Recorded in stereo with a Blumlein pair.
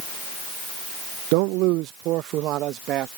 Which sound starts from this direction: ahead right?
A man speaking, at 1.3 s.